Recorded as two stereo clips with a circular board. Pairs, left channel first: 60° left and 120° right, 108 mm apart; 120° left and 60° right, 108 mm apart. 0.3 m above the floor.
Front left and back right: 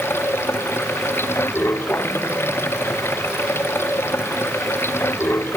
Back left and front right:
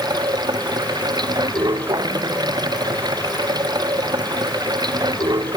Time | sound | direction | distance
0.0 | running water | 10° right | ?